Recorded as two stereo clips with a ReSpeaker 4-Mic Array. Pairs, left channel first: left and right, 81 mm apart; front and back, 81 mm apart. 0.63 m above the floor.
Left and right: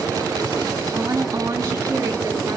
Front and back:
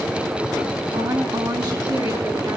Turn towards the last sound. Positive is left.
turn(degrees=-145)